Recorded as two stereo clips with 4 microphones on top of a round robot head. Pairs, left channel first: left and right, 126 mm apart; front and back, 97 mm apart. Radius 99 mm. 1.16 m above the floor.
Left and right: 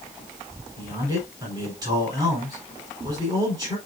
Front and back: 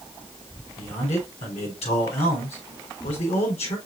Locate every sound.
0.8 s a man speaking: 25° right, 4.5 m